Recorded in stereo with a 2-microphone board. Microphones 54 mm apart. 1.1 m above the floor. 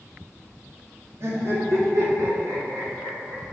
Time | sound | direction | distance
1.2 | laughter | 55° right (ahead or behind) | 2.0 m